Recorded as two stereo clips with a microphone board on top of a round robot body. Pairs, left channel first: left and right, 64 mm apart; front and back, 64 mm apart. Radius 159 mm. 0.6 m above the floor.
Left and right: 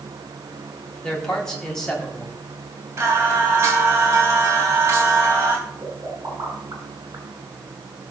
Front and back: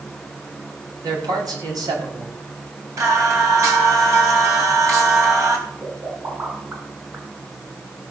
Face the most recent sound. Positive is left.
turn(degrees=-125)